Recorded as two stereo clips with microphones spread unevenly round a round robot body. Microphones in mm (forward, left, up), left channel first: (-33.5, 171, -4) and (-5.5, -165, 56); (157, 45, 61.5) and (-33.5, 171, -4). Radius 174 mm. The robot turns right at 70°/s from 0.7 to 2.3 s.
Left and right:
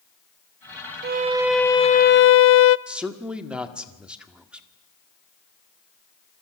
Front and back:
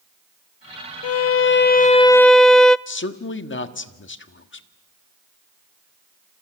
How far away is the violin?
About 0.7 m.